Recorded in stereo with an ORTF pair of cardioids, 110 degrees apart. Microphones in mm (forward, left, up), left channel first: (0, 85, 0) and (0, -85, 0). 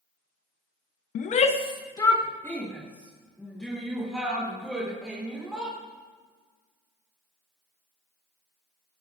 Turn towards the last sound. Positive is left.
turn(degrees=0)